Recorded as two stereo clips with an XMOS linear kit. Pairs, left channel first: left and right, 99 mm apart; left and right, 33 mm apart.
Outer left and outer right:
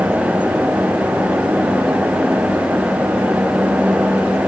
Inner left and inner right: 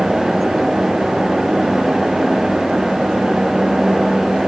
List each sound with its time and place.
Only background noise.